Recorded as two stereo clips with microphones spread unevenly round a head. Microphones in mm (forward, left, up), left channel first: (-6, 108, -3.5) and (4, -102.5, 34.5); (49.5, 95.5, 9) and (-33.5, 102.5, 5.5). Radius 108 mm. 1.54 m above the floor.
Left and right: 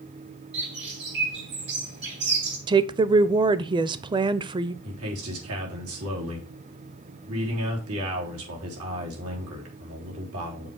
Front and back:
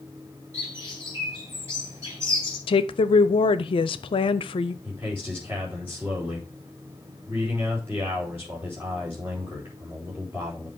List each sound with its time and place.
0.5 s a bird: 115° right, 3 m
2.7 s a woman speaking: 15° right, 0.6 m
4.8 s a man speaking: 105° right, 3.5 m